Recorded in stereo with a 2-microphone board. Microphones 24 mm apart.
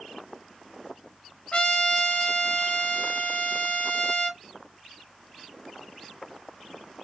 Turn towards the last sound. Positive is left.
turn(degrees=40)  # may be behind; listen again after turning